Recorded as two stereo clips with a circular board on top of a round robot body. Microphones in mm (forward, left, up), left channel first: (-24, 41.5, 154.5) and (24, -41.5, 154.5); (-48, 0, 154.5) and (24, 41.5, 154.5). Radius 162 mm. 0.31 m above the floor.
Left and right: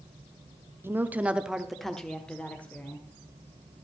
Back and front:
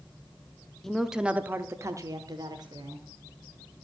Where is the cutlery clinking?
I don't hear cutlery clinking.